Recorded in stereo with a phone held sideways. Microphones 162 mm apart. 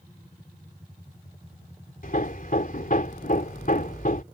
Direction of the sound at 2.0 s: 60° left (ahead or behind).